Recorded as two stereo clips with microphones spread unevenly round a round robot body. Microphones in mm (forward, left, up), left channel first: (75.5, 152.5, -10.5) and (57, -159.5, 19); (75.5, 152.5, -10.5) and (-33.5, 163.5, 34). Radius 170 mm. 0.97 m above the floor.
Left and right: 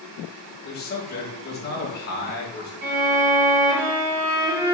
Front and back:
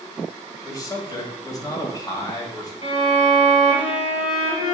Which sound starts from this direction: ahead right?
A violin, at 2.8 s.